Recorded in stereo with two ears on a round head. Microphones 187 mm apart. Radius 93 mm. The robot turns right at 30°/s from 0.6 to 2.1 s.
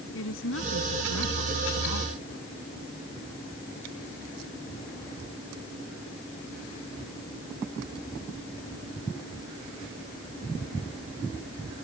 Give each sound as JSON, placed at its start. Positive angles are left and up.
{"t": 0.1, "sound": "a woman speaking", "azimuth_deg": 65}